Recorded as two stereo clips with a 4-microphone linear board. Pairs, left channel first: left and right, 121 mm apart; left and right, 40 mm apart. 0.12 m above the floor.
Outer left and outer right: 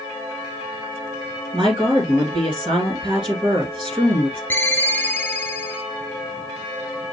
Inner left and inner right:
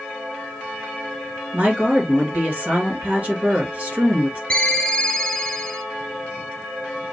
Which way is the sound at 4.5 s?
15° left (ahead or behind).